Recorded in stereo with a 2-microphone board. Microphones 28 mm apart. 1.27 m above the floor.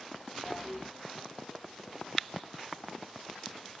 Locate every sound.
0.5 s a toilet flushing: 5° left (ahead or behind), 0.8 m